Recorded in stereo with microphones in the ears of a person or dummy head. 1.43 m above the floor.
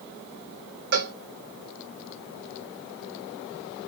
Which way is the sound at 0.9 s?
55° right (ahead or behind).